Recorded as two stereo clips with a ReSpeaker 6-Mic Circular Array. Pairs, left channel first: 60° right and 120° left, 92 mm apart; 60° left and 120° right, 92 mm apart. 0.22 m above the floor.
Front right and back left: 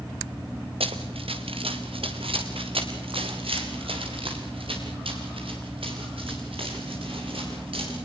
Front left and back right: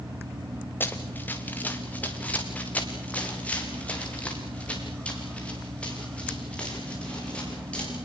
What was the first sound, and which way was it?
Running footsteps, 130° left.